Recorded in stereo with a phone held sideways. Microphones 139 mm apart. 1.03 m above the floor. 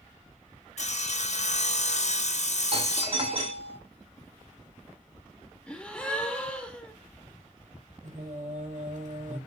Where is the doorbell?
45° right (ahead or behind), 2 m.